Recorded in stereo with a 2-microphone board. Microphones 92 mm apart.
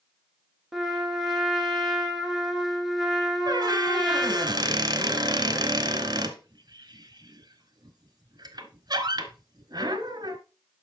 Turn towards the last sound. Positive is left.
turn(degrees=-50)  # may be behind; listen again after turning